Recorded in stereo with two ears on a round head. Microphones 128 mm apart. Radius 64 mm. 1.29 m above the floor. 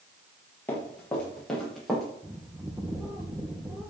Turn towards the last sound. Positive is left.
turn(degrees=-35)  # may be behind; listen again after turning